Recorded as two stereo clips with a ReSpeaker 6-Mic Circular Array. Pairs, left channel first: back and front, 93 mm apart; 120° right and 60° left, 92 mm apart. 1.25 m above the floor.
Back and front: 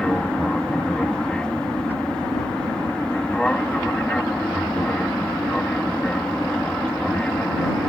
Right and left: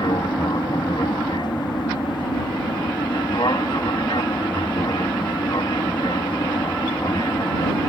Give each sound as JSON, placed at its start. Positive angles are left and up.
{"t": 0.0, "sound": "an aircraft", "azimuth_deg": -100}